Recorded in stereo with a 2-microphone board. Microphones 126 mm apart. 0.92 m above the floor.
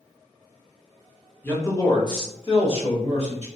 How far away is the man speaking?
About 0.8 m.